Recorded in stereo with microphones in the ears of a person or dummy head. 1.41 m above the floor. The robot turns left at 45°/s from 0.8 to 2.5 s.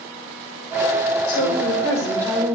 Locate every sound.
1.3 s a woman speaking: 50° left, 5 m; by 2.6 s 5° right, 5 m